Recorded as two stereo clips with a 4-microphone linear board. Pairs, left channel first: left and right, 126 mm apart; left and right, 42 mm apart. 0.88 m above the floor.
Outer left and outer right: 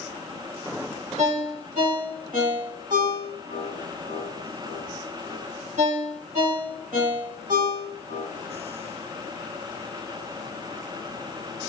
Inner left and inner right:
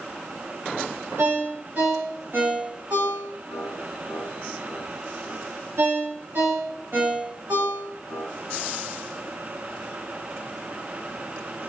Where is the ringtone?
80° right, 2.0 m.